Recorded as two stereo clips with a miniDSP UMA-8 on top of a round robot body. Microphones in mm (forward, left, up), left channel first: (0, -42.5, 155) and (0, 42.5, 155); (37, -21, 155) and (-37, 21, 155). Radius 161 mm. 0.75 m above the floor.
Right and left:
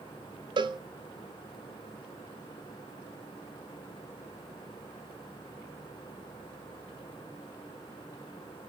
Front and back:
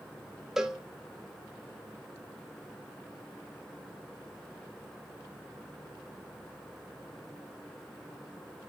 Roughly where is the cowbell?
Ahead left.